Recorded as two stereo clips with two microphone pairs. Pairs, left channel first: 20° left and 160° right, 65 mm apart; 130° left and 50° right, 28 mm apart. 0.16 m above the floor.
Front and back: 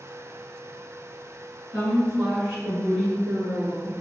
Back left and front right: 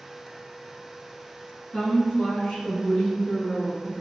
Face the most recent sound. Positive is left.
turn(degrees=135)